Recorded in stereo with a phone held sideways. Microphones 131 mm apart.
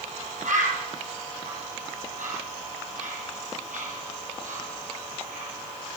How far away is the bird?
About 5.5 m.